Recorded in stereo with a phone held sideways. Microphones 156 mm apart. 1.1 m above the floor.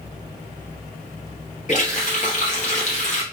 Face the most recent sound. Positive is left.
turn(degrees=45)  # may be behind; listen again after turning